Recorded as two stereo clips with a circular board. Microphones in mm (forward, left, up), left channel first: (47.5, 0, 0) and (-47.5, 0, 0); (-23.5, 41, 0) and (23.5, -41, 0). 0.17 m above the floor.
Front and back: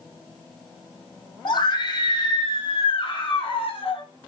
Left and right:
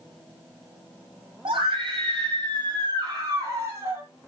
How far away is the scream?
About 7.5 m.